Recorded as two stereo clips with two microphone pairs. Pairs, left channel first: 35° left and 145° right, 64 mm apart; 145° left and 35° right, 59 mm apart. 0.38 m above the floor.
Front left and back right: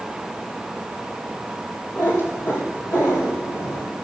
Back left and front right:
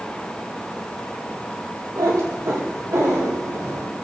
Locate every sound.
2.0 s a cat meowing: 15° right, 3.5 m; by 3.9 s 5° left, 4 m